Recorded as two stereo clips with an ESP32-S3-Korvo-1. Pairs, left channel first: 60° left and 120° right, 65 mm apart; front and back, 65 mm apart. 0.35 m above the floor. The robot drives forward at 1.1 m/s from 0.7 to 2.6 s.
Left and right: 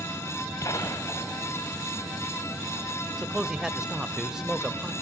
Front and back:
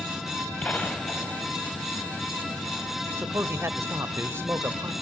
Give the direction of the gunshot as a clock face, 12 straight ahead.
10 o'clock.